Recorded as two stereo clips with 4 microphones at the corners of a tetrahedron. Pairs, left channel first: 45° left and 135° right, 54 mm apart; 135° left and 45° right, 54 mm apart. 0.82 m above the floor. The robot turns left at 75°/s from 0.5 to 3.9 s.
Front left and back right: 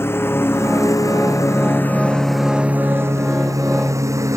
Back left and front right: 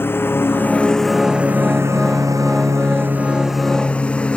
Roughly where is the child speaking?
I don't hear a child speaking.